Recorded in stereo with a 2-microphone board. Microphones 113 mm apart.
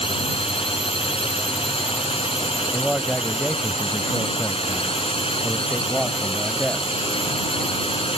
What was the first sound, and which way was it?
A drone, 55° left (ahead or behind).